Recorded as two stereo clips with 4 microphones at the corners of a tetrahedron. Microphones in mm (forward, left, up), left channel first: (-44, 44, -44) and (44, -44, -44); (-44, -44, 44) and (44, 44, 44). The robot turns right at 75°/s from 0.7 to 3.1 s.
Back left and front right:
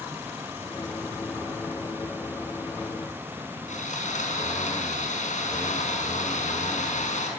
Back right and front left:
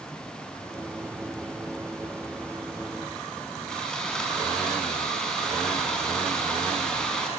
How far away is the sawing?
About 5 m.